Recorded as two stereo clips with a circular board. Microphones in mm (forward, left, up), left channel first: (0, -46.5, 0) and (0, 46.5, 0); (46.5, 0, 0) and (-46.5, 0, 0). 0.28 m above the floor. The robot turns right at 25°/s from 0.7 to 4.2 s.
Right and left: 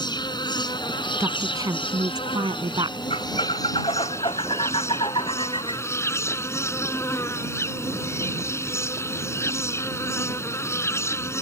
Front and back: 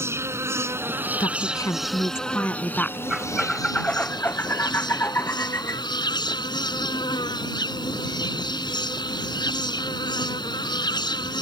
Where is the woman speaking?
35° left; by 3.0 s 80° left.